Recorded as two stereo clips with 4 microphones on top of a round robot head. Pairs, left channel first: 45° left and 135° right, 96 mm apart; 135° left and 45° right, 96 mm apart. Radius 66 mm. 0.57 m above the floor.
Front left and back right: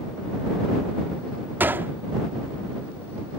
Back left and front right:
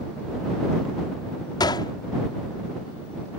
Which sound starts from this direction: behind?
A gunshot, at 1.6 s.